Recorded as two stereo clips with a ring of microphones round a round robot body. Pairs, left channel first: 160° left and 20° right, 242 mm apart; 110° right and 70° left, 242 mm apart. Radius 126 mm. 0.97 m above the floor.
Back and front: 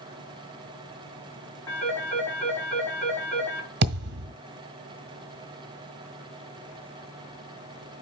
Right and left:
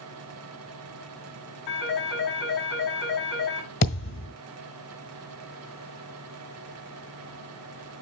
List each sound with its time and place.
1.7 s a phone ringing: 120° right, 6 m
3.8 s a thud: 70° right, 1.5 m